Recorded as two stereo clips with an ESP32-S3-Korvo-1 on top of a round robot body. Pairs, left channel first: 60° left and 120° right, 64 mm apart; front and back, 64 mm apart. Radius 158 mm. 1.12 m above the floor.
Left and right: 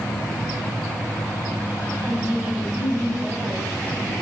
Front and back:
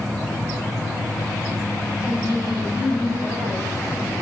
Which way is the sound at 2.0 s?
Straight behind.